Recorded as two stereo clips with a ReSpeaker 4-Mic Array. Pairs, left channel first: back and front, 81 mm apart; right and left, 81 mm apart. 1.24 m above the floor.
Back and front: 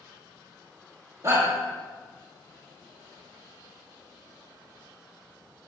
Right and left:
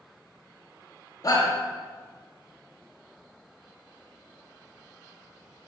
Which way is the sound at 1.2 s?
45° right.